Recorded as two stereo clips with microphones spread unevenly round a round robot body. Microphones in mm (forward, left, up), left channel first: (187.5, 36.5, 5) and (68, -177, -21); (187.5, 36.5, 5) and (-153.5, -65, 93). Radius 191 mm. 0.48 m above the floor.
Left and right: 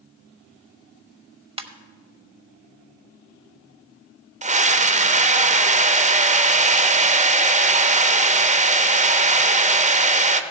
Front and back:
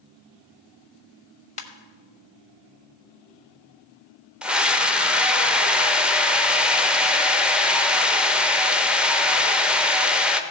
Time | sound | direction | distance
1.6 | a ringtone | 50° right | 1.2 m
4.4 | a scream | 70° right | 1.2 m